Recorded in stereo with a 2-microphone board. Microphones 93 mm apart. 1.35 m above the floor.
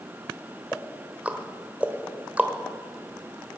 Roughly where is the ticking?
Centre.